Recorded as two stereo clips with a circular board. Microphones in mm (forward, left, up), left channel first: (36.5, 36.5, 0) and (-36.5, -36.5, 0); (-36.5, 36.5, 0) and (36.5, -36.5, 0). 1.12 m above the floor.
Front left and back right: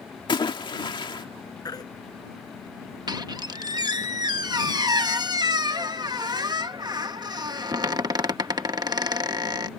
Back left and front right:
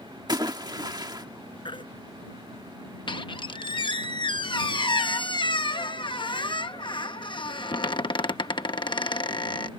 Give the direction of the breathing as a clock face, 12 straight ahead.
I don't hear breathing.